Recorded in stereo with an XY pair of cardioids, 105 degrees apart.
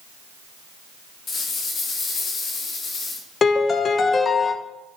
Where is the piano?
45° left, 0.8 m.